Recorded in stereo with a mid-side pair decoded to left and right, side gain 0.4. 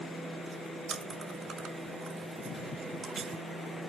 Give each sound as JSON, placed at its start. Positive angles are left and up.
{"t": 0.9, "sound": "chewing", "azimuth_deg": -50, "distance_m": 3.5}